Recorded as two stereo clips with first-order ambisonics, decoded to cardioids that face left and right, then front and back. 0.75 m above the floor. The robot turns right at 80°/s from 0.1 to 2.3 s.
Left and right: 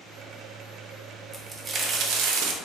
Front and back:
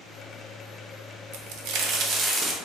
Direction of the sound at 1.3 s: 170° left.